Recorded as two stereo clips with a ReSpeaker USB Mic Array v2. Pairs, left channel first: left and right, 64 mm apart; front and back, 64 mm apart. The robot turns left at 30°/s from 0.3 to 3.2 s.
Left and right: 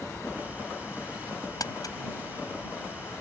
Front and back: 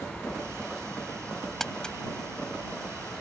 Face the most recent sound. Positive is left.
turn(degrees=35)